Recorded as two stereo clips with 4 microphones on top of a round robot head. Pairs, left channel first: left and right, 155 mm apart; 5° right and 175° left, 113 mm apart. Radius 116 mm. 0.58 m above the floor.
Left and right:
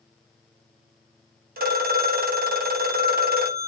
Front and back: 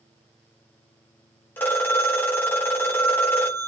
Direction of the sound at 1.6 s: 80° right.